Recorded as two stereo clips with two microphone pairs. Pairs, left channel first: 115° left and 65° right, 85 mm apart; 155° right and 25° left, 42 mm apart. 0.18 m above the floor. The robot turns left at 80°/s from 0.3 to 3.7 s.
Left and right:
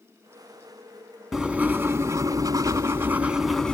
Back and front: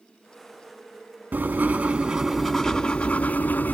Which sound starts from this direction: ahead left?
Writing, at 1.3 s.